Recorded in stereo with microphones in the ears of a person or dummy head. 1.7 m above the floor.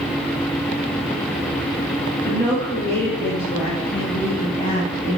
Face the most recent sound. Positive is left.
turn(degrees=70)  # may be behind; listen again after turning